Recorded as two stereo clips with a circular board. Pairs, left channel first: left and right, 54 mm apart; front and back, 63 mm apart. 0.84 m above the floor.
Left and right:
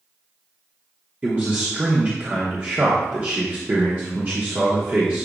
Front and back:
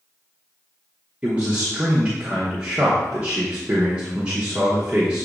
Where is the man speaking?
120° right, 0.9 m.